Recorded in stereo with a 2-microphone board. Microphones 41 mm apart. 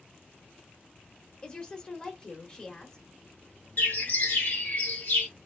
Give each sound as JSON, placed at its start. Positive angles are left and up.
{"t": 1.4, "sound": "a woman speaking", "side_deg": 20, "distance_m": 0.8}
{"t": 3.8, "sound": "a bird", "side_deg": 50, "distance_m": 1.2}